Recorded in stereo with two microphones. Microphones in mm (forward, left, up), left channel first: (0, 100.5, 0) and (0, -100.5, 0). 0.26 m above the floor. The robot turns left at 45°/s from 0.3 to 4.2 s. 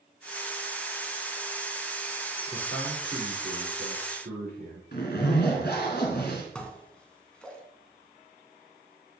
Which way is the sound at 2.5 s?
25° left.